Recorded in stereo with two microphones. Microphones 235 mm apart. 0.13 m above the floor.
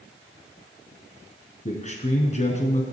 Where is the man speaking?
30° left (ahead or behind), 1.5 m.